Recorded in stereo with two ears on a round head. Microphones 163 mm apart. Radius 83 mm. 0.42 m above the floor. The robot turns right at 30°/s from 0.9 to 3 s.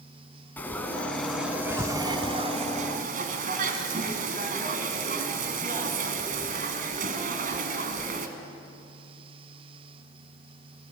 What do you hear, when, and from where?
0.6 s frying: 170° left, 2.5 m; by 8.3 s 130° right, 2.5 m